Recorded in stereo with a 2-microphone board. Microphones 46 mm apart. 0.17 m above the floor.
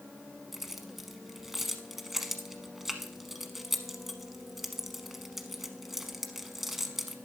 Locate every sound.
0.5 s keys jangling: 5° right (ahead or behind), 0.9 m